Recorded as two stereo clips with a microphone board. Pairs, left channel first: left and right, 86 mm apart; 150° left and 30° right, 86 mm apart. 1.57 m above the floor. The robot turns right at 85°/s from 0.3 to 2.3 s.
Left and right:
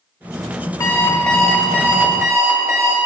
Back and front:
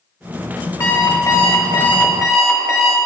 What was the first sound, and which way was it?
An alarm clock, 120° left.